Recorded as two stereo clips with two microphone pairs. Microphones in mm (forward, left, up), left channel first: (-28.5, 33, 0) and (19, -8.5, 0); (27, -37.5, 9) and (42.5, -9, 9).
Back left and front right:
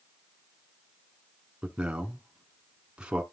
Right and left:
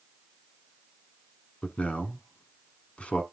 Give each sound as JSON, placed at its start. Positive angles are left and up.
{"t": 1.6, "sound": "a man speaking", "azimuth_deg": -110, "distance_m": 1.3}